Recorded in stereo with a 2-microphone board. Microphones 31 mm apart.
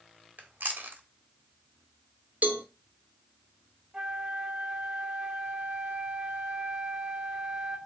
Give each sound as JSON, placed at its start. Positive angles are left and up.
{"t": 0.4, "sound": "chewing", "side_deg": -85, "distance_m": 1.5}
{"t": 2.4, "sound": "a cowbell", "side_deg": -65, "distance_m": 1.2}
{"t": 3.9, "sound": "a flute", "side_deg": -30, "distance_m": 3.0}